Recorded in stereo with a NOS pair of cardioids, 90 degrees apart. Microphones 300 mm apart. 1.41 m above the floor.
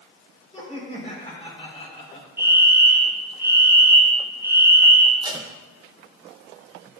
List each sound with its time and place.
0.5 s laughter: 20° left, 4 m
2.4 s a fire alarm: 10° right, 4 m
5.2 s tape being pulled: 15° right, 0.9 m